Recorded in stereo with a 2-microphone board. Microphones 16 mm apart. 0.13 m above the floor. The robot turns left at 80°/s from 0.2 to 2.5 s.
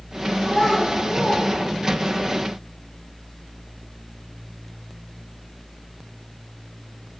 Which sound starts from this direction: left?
A child speaking, at 0.4 s.